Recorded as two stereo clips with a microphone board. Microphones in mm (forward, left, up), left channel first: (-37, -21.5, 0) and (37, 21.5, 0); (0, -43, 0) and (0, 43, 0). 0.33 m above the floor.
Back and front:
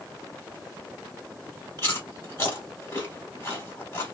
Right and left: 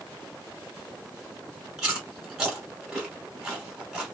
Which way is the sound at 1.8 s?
165° left.